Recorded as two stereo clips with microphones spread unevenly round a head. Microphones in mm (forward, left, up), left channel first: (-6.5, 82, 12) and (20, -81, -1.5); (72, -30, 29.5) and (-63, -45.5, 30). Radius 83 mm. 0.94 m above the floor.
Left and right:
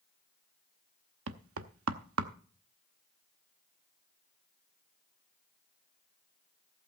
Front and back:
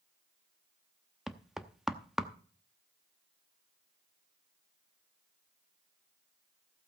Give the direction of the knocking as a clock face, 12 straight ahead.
3 o'clock.